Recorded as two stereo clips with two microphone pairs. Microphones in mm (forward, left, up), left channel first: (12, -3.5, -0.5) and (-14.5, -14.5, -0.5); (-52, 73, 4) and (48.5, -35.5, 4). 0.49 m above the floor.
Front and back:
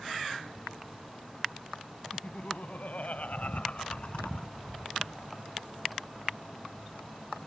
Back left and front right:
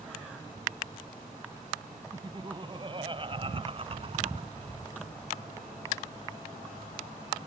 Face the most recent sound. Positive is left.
turn(degrees=-30)